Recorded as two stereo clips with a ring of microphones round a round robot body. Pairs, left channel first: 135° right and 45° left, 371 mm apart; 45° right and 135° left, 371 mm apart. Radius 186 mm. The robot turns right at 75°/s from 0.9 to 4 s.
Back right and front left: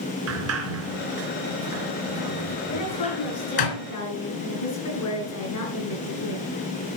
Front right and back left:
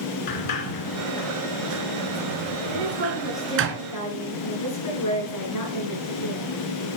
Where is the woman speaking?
175° left, 9 m; by 6.5 s 90° right, 9 m.